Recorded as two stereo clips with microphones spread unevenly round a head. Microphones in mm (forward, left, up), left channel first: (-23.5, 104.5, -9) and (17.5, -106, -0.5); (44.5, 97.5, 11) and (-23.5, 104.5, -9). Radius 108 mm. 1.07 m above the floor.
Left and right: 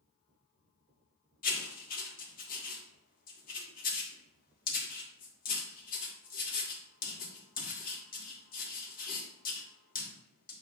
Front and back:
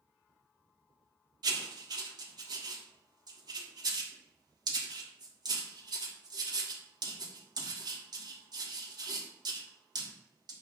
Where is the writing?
155° left, 1.4 m.